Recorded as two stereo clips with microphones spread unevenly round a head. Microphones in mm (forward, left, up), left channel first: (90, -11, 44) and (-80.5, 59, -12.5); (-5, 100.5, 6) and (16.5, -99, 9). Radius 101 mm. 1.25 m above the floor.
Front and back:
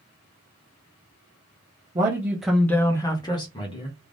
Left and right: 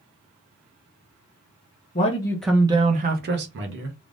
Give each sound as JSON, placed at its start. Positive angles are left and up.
{"t": 1.9, "sound": "a man speaking", "azimuth_deg": 125, "distance_m": 0.6}